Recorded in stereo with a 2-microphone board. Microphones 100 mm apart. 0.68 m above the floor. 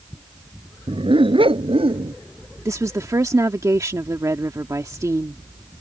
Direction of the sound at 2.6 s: 35° right (ahead or behind).